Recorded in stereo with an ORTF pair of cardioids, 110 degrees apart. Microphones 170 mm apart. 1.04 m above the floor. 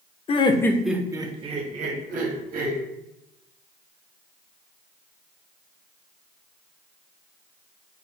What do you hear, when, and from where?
0.3 s laughter: 35° left, 0.6 m; by 2.8 s 60° right, 1.5 m